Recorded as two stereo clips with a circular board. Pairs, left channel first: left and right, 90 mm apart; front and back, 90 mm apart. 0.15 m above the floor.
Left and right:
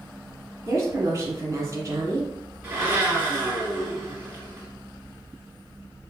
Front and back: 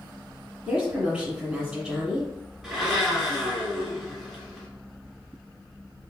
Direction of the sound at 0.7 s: 115° right.